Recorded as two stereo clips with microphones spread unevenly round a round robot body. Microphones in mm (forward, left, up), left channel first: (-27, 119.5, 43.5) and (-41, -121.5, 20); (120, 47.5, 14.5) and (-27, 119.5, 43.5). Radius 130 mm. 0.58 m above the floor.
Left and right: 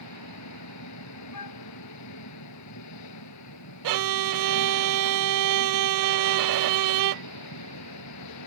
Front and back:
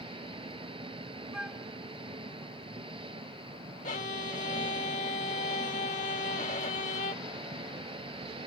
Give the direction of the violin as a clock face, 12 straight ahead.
3 o'clock.